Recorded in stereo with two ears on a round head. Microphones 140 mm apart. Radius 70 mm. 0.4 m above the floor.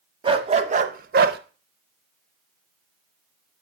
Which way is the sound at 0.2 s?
35° right (ahead or behind).